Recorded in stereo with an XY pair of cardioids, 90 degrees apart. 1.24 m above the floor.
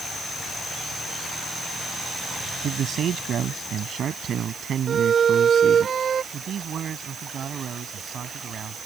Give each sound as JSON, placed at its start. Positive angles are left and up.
{"t": 2.6, "sound": "a man speaking", "azimuth_deg": -70}
{"t": 4.9, "sound": "a violin", "azimuth_deg": -55}
{"t": 6.3, "sound": "a man speaking", "azimuth_deg": -65}